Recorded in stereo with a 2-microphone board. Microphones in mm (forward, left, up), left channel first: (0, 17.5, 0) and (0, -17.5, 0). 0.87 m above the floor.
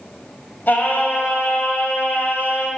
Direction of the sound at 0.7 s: 65° left (ahead or behind).